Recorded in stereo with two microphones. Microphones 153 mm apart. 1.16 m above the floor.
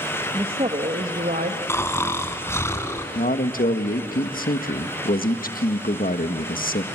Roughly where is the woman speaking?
Right.